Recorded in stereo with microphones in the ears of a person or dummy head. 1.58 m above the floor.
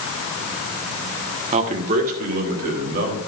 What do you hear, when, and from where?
1.5 s a man speaking: 40° right (ahead or behind), 1.1 m; by 3.2 s 55° right (ahead or behind), 3.5 m